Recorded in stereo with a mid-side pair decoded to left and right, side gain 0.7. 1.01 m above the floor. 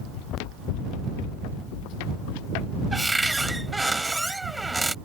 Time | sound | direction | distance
0.1 | running footsteps | 70° left | ?
2.9 | a cupboard door | 5° right | ?